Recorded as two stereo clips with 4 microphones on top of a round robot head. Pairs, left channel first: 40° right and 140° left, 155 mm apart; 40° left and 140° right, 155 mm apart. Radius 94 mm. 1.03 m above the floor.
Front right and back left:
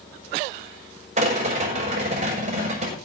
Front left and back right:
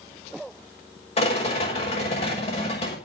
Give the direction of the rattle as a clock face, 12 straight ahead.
9 o'clock.